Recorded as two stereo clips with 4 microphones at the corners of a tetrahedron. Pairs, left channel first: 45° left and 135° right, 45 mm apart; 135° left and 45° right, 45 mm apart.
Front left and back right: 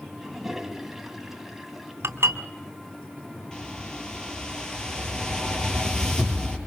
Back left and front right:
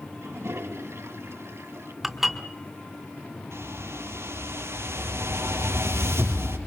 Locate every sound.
0.2 s a toilet flushing: 50° right, 1.7 m
2.0 s dishes clattering: 130° right, 2.5 m
3.5 s a whoosh: 30° right, 4 m